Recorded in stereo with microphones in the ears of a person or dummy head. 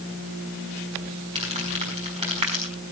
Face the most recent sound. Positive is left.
turn(degrees=-30)  # may be behind; listen again after turning